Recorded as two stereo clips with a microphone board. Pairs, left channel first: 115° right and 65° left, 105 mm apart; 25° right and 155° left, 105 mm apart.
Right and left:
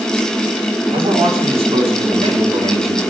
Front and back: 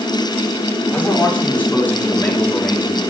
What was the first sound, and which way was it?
A man speaking, 50° left.